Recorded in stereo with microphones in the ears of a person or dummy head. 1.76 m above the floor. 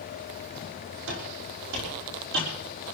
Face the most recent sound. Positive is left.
turn(degrees=-60)  # may be behind; listen again after turning